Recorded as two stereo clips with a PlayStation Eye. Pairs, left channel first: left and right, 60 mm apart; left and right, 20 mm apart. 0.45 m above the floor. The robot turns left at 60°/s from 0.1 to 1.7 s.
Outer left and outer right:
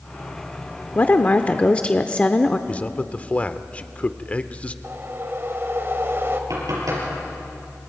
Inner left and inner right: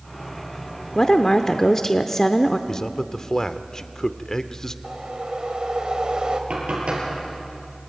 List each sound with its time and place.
0.9 s a woman speaking: 85° left, 0.8 m; by 2.6 s 40° left, 0.8 m
2.7 s a man speaking: 25° left (ahead or behind), 0.8 m
4.8 s a whoosh: 45° right (ahead or behind), 1.8 m
6.5 s knocking: 80° right, 8.5 m